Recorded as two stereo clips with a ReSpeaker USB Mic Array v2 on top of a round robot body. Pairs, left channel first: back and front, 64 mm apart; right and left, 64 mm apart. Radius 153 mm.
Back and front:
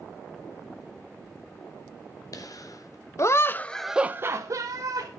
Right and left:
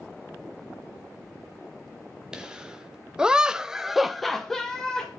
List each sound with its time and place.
2.3 s laughter: 170° left, 2.5 m; by 5.1 s 5° right, 2 m